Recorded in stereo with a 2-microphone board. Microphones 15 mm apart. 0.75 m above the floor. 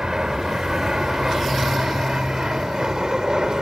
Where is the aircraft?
45° right (ahead or behind); by 3.6 s 50° right (ahead or behind).